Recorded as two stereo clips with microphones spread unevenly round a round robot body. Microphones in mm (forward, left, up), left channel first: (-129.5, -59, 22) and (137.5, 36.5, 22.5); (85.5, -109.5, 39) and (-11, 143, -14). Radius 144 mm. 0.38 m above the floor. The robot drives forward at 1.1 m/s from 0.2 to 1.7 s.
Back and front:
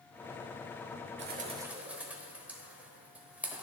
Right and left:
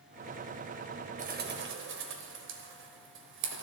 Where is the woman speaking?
I don't hear a woman speaking.